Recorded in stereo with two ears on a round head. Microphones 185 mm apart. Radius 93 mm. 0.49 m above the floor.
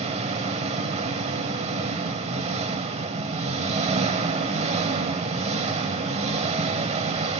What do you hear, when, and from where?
0.0 s an engine running: 30° right (ahead or behind), 1.0 m